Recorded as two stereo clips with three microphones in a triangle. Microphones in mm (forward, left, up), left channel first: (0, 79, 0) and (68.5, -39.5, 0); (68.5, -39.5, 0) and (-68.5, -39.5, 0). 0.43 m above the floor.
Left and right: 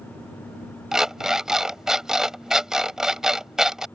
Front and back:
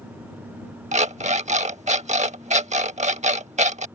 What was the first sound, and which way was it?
An alarm clock, 145° right.